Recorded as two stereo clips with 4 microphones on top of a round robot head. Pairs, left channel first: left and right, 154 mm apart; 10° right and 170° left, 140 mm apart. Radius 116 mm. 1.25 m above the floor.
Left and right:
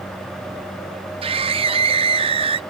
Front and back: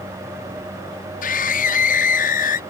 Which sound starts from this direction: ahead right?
A scream, at 1.2 s.